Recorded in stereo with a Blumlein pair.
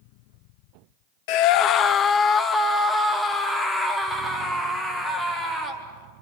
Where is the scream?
45° left, 0.7 m; by 5.8 s 5° left, 4 m.